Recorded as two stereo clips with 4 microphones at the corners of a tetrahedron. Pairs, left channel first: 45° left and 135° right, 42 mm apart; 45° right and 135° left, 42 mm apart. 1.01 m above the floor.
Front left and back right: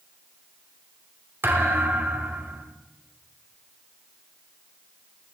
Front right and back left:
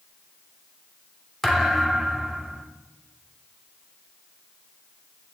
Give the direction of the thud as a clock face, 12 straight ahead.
4 o'clock.